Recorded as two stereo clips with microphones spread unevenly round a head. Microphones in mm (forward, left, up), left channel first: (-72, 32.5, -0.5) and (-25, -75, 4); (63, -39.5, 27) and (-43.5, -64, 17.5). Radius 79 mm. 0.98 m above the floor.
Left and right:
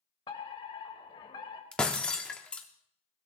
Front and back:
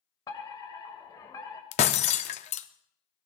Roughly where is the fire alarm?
Left.